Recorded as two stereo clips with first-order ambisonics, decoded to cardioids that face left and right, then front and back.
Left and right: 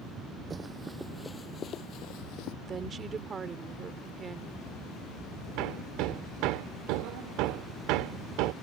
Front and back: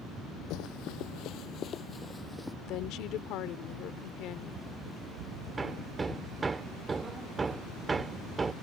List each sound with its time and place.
0.5 s running footsteps: 20° right; by 2.5 s 90° left
2.6 s a woman speaking: 25° right
5.6 s hammering: 105° right